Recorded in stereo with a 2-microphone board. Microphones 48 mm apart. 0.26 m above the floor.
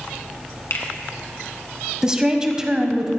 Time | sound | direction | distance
0.7 | a finger snap | 65° left (ahead or behind) | 1.8 m
2.0 | a woman speaking | 15° right (ahead or behind) | 1.3 m